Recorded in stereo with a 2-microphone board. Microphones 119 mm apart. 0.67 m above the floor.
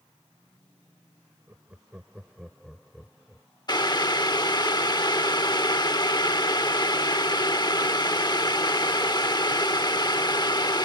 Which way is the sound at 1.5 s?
20° right (ahead or behind).